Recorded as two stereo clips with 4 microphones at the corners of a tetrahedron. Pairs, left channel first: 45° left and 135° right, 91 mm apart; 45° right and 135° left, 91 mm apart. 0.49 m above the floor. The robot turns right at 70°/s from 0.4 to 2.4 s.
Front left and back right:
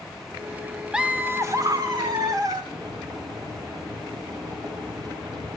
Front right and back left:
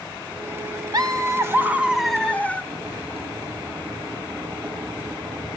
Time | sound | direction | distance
0.9 | laughter | 145° left | 1.4 m
2.6 | boiling | 160° right | 4 m